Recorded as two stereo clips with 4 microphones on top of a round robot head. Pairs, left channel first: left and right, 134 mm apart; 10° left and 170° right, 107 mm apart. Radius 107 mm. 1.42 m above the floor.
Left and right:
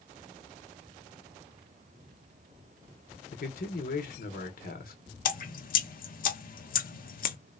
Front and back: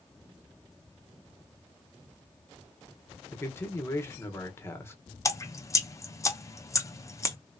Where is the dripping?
75° left, 0.8 m.